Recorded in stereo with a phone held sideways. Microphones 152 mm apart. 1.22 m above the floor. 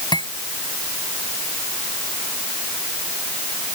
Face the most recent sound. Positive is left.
turn(degrees=30)  # may be behind; listen again after turning